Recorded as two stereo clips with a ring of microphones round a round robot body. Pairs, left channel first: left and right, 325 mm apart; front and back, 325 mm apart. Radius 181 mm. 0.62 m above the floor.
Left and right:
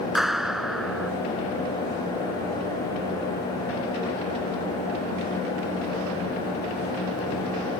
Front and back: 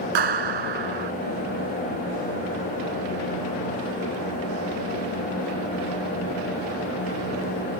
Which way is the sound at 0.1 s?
Straight behind.